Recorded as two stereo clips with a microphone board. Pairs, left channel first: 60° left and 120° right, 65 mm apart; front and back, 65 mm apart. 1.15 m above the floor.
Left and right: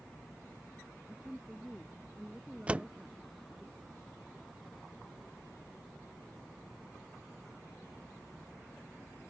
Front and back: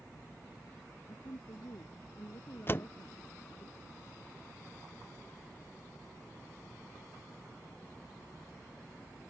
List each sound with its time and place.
1.1 s a woman speaking: 30° right; by 3.7 s 35° right
2.7 s a door slam: 55° right